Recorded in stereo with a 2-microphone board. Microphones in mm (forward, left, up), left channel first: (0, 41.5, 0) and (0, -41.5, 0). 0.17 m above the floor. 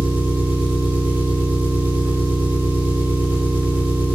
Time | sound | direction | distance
0.0 | an engine running | 20° right (ahead or behind) | 6.5 m